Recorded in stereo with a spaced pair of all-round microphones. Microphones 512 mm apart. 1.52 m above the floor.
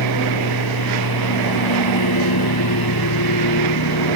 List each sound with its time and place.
0.0 s a lawn mower: 45° left (ahead or behind)